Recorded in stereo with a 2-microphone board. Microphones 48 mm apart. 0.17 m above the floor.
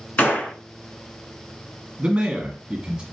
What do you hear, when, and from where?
0.2 s a gunshot: 40° left (ahead or behind), 1.3 m
2.0 s a man speaking: 20° right (ahead or behind), 1.5 m